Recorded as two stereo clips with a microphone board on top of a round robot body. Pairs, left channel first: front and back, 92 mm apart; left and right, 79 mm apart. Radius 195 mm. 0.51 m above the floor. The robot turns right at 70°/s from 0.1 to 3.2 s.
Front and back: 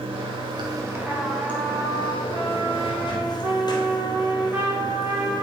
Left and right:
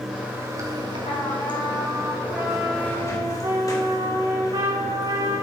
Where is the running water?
175° right, 3 m; by 5.4 s 45° left, 3 m.